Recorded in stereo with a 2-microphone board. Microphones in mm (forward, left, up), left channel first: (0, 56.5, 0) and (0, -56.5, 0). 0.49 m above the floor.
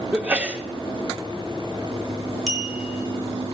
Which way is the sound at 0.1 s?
10° right (ahead or behind).